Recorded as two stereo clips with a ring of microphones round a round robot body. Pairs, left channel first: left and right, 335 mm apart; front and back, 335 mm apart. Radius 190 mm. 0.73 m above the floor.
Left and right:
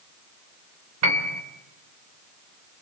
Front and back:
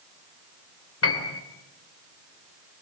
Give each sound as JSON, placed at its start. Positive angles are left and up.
{"t": 1.0, "sound": "a piano", "azimuth_deg": -50, "distance_m": 3.5}